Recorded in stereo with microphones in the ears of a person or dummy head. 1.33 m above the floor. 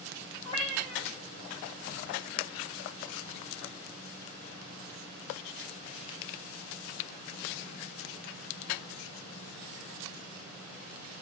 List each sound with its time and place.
0.5 s a cat meowing: 30° left (ahead or behind), 1.0 m